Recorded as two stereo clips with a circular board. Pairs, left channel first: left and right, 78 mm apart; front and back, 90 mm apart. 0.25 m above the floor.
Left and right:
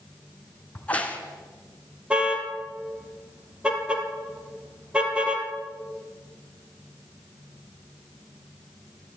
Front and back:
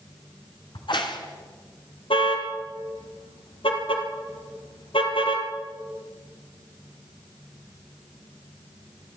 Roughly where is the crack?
Ahead.